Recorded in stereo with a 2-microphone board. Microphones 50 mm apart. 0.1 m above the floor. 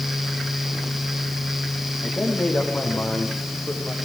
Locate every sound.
2.0 s a man speaking: 45° left (ahead or behind), 8 m; by 4.0 s 35° left (ahead or behind), 6.5 m